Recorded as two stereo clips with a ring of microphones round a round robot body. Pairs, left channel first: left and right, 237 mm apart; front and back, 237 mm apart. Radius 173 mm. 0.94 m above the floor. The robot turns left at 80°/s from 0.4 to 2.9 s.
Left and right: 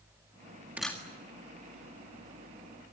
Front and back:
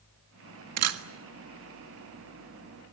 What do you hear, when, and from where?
0.8 s a camera shutter: 175° right, 1.5 m; by 1.0 s 165° left, 1.5 m